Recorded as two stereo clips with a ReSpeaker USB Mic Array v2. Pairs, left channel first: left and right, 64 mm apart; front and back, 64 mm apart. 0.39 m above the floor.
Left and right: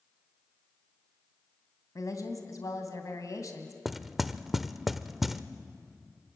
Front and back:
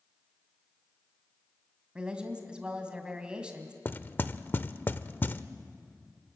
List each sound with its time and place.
1.9 s a woman speaking: 105° left, 2.5 m
3.9 s knocking: 5° right, 0.7 m